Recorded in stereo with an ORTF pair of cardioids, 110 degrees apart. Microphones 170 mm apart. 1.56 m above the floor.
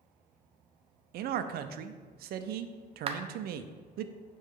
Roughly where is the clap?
Ahead right.